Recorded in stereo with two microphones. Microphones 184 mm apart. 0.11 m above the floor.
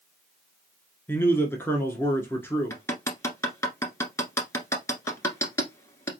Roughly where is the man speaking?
Centre.